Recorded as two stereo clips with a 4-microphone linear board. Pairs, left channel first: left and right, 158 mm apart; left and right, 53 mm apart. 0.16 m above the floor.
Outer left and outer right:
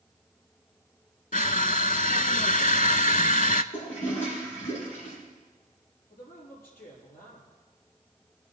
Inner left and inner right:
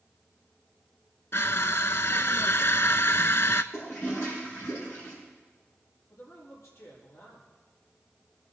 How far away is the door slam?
No door slam in this recording.